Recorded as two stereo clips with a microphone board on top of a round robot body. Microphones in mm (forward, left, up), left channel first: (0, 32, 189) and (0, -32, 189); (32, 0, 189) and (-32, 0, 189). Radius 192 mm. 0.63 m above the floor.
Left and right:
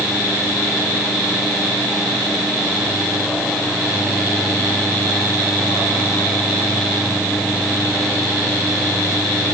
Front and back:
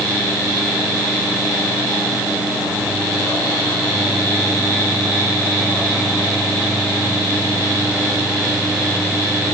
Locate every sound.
Only background noise.